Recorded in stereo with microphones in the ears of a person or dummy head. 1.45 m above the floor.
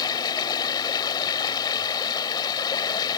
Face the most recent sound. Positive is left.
turn(degrees=20)  # may be behind; listen again after turning